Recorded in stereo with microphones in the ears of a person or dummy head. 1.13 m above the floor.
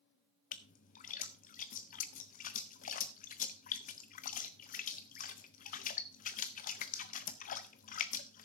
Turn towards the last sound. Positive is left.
turn(degrees=40)  # may be behind; listen again after turning